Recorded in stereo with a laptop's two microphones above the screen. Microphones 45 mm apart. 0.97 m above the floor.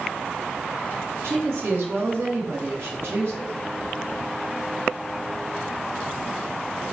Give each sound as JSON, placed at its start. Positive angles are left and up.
{"t": 1.2, "sound": "a woman speaking", "side_deg": -70, "distance_m": 2.0}